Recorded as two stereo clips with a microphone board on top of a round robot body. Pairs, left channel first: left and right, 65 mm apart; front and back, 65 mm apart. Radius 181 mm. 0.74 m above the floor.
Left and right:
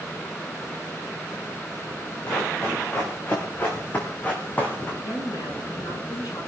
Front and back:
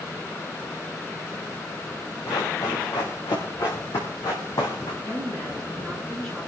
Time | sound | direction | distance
2.3 | running footsteps | 30° left | 6 m
5.0 | a woman speaking | 80° left | 9.5 m